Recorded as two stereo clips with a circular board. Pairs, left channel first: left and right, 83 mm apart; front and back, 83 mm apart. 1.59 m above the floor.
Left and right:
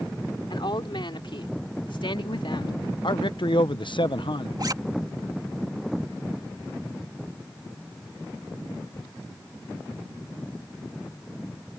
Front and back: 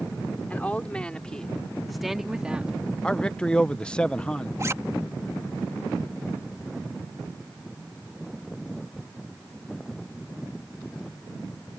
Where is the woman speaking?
70° left; by 2.7 s 105° left.